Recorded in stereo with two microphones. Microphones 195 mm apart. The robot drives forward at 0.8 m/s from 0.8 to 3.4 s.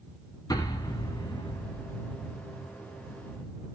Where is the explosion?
20° left (ahead or behind), 3 m; by 2.1 s 30° left (ahead or behind), 2 m.